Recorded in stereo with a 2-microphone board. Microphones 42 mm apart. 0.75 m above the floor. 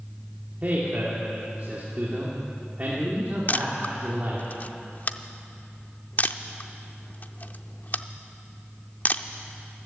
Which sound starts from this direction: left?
A camera shutter, at 3.5 s.